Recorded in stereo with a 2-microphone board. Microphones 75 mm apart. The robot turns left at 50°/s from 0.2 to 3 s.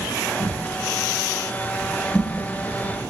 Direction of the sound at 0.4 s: 80° left.